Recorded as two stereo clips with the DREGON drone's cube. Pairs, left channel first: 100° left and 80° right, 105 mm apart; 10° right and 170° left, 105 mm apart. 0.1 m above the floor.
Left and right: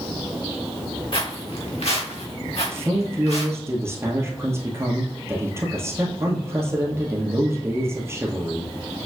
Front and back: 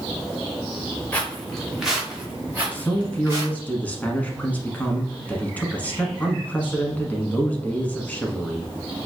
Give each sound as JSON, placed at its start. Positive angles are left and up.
{"t": 1.1, "sound": "footsteps", "azimuth_deg": 65, "distance_m": 1.8}
{"t": 2.7, "sound": "a man speaking", "azimuth_deg": -70, "distance_m": 1.2}